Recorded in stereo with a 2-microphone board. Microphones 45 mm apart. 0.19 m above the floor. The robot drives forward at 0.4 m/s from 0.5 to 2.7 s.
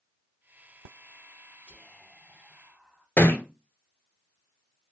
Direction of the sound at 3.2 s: 45° left (ahead or behind).